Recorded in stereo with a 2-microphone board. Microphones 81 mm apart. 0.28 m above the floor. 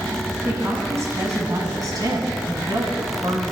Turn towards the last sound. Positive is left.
turn(degrees=-60)  # may be behind; listen again after turning